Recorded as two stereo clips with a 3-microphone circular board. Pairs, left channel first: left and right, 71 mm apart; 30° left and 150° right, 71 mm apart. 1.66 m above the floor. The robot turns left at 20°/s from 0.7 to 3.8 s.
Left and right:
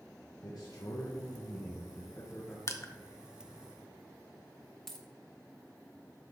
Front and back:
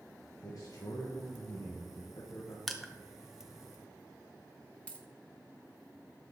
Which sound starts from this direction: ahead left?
A man speaking, at 0.4 s.